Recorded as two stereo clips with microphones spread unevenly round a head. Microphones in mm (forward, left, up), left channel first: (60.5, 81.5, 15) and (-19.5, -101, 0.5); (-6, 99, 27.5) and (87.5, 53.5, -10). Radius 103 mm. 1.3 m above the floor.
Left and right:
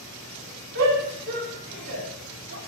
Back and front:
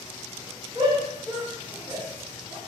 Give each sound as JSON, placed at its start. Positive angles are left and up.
{"t": 0.8, "sound": "a shout", "azimuth_deg": -95, "distance_m": 3.0}